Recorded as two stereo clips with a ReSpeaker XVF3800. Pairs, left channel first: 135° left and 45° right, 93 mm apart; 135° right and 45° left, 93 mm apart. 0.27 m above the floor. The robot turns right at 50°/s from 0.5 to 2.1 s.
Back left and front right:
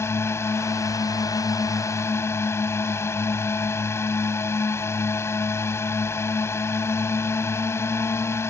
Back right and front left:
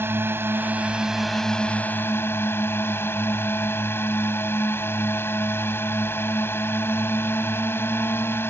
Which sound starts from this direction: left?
A drone, at 0.0 s.